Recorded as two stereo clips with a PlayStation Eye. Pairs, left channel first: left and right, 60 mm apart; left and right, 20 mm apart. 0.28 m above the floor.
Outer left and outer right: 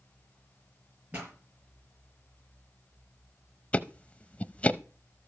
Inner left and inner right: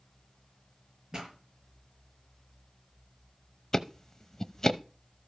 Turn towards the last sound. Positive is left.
turn(degrees=20)  # may be behind; listen again after turning